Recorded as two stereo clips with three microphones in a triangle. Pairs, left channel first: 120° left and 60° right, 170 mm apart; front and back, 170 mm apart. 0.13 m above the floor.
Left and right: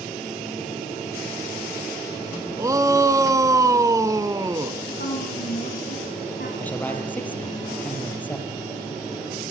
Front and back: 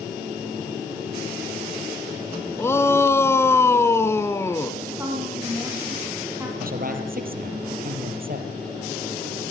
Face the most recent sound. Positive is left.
turn(degrees=-160)